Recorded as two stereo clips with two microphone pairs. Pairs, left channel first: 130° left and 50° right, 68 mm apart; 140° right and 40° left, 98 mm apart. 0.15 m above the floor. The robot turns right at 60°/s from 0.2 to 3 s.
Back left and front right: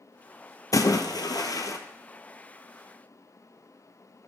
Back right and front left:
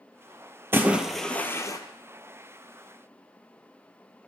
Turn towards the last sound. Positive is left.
turn(degrees=-120)